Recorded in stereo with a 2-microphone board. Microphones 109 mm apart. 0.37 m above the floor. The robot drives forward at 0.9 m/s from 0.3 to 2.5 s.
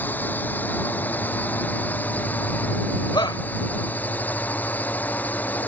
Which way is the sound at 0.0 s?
15° left (ahead or behind).